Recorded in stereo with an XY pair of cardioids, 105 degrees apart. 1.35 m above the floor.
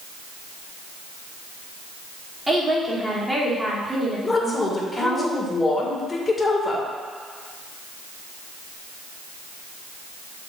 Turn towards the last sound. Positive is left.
turn(degrees=25)